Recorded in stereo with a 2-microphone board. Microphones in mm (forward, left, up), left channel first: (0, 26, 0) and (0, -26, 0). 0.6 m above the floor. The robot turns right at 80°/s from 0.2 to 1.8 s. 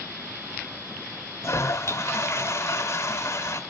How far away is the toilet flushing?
About 3 m.